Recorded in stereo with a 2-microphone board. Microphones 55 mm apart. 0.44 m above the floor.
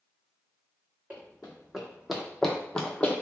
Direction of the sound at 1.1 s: 20° right (ahead or behind).